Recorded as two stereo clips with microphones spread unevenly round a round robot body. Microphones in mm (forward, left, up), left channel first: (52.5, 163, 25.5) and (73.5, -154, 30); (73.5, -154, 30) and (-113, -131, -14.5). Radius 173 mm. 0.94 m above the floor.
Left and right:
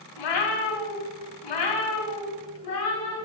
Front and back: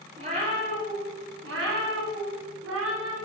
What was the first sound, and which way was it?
A cat meowing, 95° left.